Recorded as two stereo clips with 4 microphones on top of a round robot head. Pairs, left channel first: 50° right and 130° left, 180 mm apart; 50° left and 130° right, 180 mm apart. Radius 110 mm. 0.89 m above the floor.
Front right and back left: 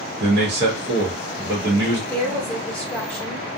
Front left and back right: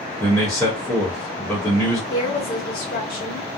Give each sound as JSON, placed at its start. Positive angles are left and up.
{"t": 0.2, "sound": "a man speaking", "azimuth_deg": 135, "distance_m": 1.0}
{"t": 2.1, "sound": "a woman speaking", "azimuth_deg": 35, "distance_m": 1.2}